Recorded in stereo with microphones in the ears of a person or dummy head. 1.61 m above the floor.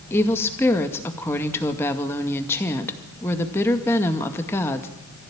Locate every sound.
0.1 s a woman speaking: 10° left (ahead or behind), 2 m